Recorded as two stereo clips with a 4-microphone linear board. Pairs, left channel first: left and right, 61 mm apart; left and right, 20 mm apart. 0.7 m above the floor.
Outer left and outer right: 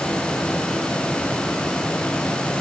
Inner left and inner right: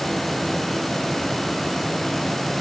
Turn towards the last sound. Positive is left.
No sound to turn to.